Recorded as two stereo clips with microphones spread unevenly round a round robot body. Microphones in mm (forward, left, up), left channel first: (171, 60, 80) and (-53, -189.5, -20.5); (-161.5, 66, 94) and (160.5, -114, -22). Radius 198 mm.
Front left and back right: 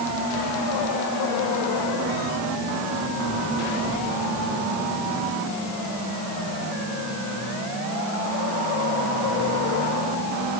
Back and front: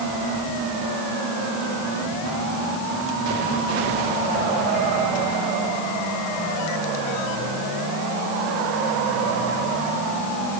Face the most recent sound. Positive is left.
No sound to turn to.